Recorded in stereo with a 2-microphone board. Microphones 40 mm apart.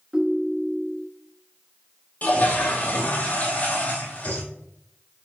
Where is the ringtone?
20° right (ahead or behind), 0.7 m.